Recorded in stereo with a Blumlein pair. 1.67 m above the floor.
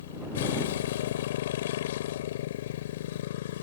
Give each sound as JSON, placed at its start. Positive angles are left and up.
{"t": 0.0, "sound": "a motorcycle", "azimuth_deg": 55}